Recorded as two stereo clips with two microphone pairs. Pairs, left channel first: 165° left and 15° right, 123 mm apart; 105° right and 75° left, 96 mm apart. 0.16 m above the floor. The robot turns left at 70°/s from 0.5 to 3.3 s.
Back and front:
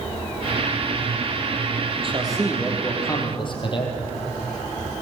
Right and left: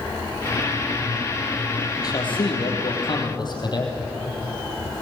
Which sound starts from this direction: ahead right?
A man speaking, at 2.0 s.